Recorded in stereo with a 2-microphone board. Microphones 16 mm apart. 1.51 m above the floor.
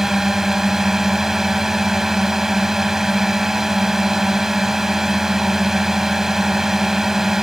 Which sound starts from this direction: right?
A drone, at 0.0 s.